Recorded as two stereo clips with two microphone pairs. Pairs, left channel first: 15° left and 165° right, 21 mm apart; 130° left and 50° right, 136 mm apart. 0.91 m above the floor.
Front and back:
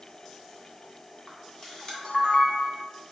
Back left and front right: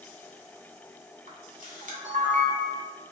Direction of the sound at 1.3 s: 40° right.